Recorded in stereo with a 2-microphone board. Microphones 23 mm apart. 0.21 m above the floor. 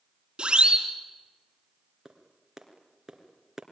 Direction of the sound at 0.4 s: 45° right (ahead or behind).